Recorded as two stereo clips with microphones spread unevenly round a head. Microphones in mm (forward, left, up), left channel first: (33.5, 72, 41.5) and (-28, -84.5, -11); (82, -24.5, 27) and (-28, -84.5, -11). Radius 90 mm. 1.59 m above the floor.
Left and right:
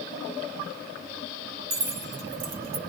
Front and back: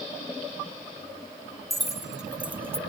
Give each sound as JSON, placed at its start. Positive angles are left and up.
{"t": 1.7, "sound": "keys jangling", "azimuth_deg": -55, "distance_m": 3.5}